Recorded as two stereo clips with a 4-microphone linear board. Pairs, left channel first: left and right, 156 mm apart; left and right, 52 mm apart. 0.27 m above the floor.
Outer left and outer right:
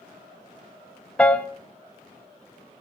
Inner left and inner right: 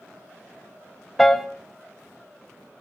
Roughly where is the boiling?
I don't hear boiling.